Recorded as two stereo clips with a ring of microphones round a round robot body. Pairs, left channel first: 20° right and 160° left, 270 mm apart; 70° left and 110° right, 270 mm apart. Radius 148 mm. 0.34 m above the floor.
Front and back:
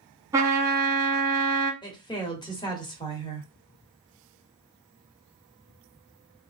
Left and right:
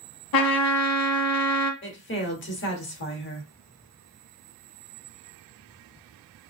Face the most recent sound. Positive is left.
turn(degrees=45)